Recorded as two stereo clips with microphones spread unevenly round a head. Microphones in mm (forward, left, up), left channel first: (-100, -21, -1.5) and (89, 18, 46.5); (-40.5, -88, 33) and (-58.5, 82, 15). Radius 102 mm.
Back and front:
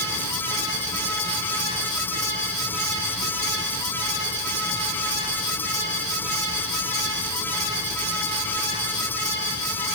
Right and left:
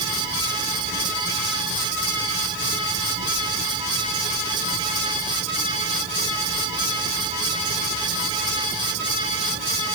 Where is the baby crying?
No baby crying in this recording.